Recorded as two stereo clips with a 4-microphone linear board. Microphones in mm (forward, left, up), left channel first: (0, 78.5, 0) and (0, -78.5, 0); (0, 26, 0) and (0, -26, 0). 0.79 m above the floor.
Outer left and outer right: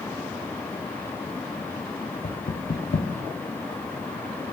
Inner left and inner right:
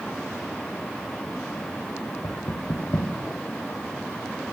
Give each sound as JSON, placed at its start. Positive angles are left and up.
{"t": 2.2, "sound": "knocking", "side_deg": 65, "distance_m": 0.9}